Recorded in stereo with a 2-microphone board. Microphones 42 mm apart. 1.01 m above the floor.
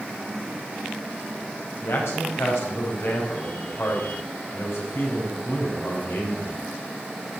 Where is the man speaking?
85° left, 4.5 m.